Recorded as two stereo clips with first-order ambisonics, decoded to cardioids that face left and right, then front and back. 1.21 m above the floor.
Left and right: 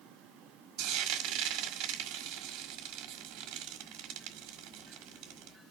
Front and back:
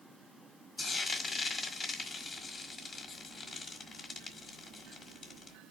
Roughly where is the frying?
Right.